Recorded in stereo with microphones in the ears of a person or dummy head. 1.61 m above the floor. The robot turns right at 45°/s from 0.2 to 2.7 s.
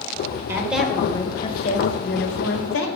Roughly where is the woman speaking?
Ahead.